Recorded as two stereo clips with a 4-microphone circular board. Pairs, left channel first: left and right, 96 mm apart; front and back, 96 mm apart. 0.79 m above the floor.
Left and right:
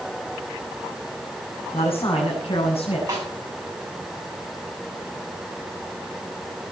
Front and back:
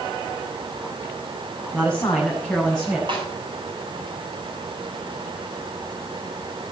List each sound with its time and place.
1.7 s a man speaking: 85° left, 6.5 m; by 3.0 s 90° left, 7 m
3.1 s a snare drum: 145° right, 7.5 m